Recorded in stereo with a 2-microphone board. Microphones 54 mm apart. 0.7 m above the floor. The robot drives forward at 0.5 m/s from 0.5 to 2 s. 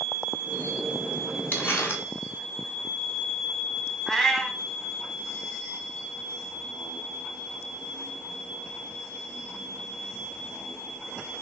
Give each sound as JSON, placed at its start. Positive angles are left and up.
{"t": 1.5, "sound": "crumpling", "side_deg": 35, "distance_m": 0.9}
{"t": 4.1, "sound": "a cat meowing", "side_deg": 5, "distance_m": 0.6}